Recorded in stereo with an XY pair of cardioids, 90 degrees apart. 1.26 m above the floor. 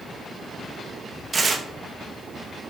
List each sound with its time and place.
1.3 s tearing paper: 40° right, 1.6 m